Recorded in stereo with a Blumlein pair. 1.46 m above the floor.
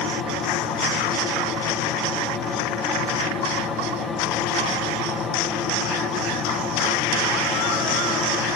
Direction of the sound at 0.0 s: 20° left.